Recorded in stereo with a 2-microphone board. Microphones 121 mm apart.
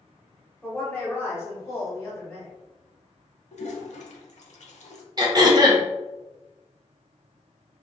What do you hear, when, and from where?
0.6 s a woman speaking: 10° left (ahead or behind), 1.4 m; by 2.5 s 25° left (ahead or behind), 1.6 m
3.5 s a toilet flushing: 75° left (ahead or behind), 0.6 m
5.2 s throat clearing: 35° right (ahead or behind), 0.7 m